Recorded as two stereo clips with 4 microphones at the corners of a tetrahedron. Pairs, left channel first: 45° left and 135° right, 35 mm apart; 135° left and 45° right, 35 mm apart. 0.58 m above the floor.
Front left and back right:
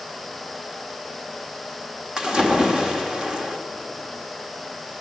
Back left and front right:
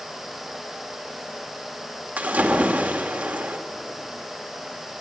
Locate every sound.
2.2 s a splash: 70° right, 1.7 m